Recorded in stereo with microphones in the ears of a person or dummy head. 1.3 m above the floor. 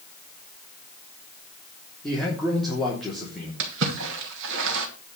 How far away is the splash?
About 2.5 m.